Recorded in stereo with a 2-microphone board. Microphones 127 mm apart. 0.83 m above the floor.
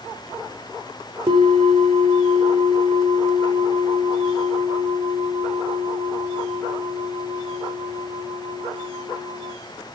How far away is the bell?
About 3 m.